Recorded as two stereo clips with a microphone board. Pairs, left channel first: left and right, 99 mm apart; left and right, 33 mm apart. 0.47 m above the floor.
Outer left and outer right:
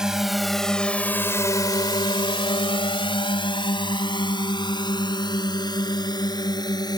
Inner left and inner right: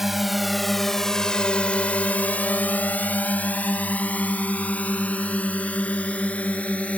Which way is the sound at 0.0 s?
5° right (ahead or behind).